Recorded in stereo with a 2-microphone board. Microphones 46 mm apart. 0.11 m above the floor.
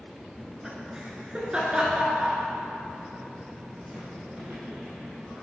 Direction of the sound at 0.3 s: 10° right (ahead or behind).